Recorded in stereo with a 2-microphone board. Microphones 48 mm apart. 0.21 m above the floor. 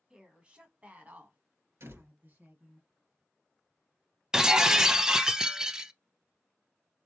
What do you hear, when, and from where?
0.1 s a woman speaking: 20° right (ahead or behind), 1.5 m; by 2.8 s 50° right (ahead or behind), 1.9 m
1.8 s a door slam: 70° right (ahead or behind), 2.5 m
4.3 s breaking glass: 15° right (ahead or behind), 0.5 m